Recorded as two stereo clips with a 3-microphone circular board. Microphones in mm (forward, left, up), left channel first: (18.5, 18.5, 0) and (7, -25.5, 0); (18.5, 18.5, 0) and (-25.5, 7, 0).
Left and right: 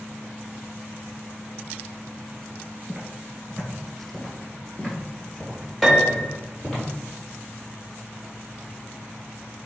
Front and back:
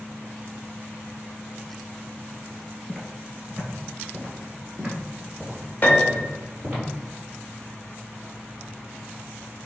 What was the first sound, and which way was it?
Footsteps, 90° right.